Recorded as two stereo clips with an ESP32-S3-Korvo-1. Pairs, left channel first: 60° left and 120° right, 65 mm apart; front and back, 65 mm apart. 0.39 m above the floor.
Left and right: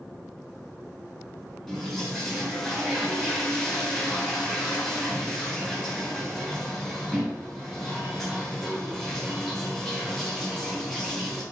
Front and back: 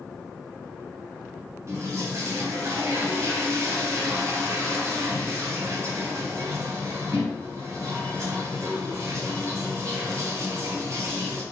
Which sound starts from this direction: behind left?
A toilet flushing, at 1.7 s.